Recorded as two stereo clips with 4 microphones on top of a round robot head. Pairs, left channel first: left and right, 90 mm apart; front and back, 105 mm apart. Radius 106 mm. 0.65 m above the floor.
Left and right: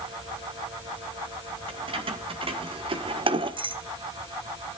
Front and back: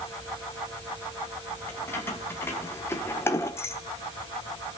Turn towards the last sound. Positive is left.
turn(degrees=-65)